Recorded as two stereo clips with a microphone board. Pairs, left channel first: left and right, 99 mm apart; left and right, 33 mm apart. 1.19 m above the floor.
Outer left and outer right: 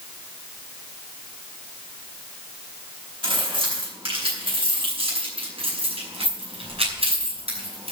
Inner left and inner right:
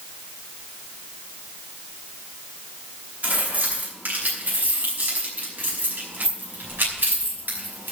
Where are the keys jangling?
60° right (ahead or behind), 6.5 m; by 7.9 s 85° right, 5 m.